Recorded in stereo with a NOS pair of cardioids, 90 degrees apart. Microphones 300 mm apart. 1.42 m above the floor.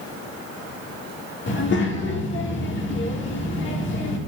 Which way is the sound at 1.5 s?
40° left.